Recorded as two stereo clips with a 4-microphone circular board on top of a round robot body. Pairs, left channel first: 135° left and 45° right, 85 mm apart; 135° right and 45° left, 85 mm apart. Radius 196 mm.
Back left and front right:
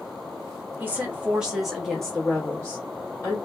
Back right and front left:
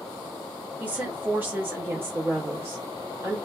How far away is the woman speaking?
About 1.4 m.